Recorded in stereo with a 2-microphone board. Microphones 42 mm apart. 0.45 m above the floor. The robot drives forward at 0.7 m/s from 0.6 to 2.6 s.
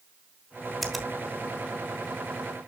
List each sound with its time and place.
0.8 s a finger snap: 5° left (ahead or behind), 1.6 m